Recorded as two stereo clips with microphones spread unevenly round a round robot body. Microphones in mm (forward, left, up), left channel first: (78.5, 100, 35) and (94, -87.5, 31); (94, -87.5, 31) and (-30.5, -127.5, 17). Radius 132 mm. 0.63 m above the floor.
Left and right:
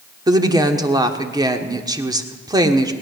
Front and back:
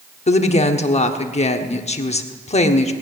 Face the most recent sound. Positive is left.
turn(degrees=-15)